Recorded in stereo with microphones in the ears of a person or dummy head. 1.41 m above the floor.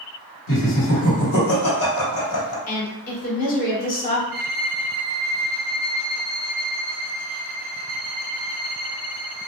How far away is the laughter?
About 1.5 m.